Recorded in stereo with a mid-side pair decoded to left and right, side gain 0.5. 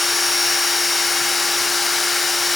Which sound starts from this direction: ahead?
A machine running, at 0.0 s.